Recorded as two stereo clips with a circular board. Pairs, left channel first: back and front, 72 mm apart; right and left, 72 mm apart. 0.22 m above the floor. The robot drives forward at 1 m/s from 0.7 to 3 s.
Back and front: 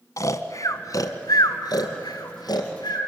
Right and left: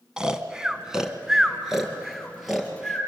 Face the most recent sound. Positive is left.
turn(degrees=175)